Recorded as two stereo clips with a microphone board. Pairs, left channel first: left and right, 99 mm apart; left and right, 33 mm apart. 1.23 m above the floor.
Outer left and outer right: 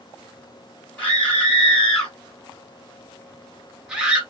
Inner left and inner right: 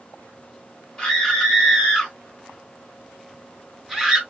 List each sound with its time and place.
1.0 s a scream: 15° left (ahead or behind), 3.5 m; by 4.2 s 15° right (ahead or behind), 1.6 m